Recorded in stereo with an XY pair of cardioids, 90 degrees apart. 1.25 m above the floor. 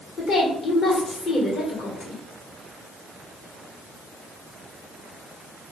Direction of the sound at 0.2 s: 65° left.